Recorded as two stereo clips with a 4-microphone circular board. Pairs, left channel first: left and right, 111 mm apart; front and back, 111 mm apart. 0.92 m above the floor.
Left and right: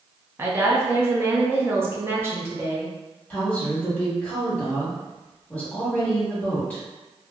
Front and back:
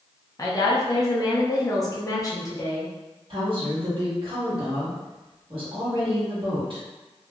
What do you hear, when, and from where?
0.4 s a woman speaking: 35° right, 0.7 m
3.3 s a woman speaking: 160° left, 1.4 m